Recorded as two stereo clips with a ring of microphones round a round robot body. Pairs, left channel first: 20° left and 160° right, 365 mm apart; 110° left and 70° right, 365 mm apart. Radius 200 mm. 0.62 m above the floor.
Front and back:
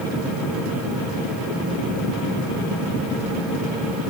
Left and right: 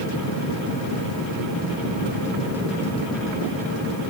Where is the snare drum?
I don't hear a snare drum.